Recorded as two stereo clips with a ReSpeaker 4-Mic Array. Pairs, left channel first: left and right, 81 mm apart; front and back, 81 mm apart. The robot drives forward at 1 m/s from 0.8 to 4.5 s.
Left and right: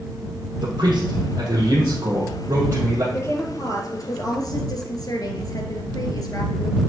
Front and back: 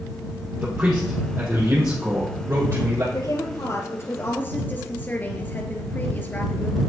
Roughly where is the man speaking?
Right.